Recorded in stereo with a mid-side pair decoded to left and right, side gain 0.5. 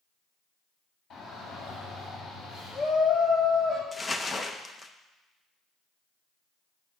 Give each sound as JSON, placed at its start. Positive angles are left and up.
{"t": 1.1, "sound": "a shout", "azimuth_deg": 60, "distance_m": 5.0}
{"t": 3.9, "sound": "crumpling", "azimuth_deg": 25, "distance_m": 0.7}